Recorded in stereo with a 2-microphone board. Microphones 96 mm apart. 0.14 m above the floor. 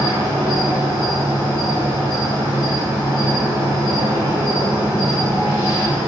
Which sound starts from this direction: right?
An insect, at 0.0 s.